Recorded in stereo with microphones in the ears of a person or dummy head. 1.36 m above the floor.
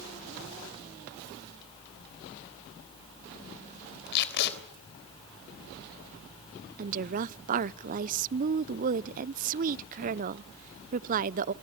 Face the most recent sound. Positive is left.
turn(degrees=-35)  # may be behind; listen again after turning